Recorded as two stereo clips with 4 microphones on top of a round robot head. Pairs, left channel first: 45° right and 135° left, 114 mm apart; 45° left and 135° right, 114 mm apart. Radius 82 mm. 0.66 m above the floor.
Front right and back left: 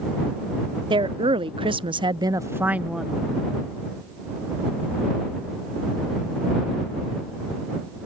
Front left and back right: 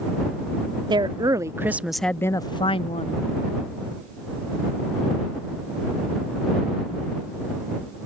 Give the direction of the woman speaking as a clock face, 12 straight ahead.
6 o'clock.